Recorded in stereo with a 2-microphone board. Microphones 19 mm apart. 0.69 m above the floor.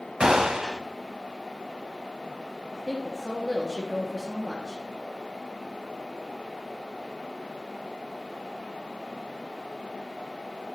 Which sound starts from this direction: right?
A gunshot, at 0.2 s.